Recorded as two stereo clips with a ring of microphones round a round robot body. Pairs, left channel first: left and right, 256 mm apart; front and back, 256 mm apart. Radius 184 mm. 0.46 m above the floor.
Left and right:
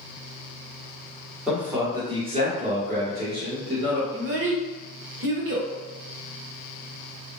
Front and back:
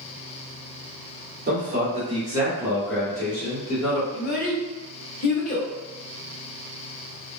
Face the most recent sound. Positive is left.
turn(degrees=-55)